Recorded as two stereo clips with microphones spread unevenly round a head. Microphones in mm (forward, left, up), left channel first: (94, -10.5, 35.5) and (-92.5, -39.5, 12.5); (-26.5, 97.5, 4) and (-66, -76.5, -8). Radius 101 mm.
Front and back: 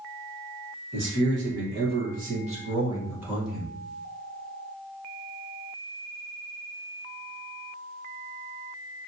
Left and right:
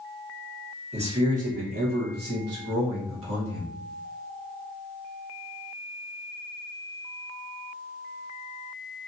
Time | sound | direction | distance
0.9 | a man speaking | 155° right | 1.6 m